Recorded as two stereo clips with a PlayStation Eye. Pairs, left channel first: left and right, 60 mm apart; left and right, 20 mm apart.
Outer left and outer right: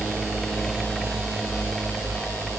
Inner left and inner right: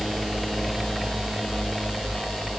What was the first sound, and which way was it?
Only background noise.